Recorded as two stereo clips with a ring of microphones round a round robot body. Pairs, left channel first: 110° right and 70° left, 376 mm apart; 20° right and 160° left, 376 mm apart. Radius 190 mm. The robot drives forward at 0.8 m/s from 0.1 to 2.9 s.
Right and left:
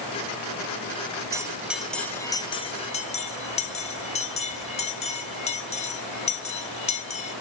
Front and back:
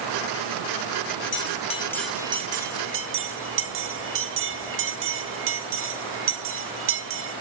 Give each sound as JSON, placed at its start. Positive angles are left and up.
{"t": 1.3, "sound": "a bell", "azimuth_deg": -5, "distance_m": 1.1}